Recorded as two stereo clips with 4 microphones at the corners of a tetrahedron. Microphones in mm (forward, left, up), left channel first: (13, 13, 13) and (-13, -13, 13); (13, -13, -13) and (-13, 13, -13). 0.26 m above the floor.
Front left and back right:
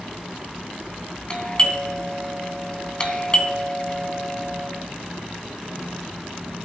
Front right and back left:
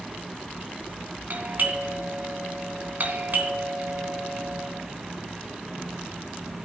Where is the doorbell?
110° left, 3 m.